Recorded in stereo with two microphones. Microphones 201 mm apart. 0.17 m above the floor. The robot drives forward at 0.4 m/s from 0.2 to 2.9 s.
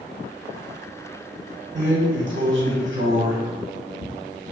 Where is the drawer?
65° right (ahead or behind), 1.5 m; by 4.1 s 75° right (ahead or behind), 1.4 m.